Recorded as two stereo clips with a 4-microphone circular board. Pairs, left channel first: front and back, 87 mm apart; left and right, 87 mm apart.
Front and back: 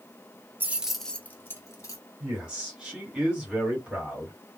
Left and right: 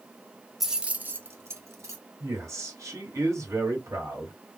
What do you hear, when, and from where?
0.6 s keys jangling: 170° right, 0.6 m; by 2.0 s 45° right, 1.1 m
2.2 s a man speaking: 105° right, 1.7 m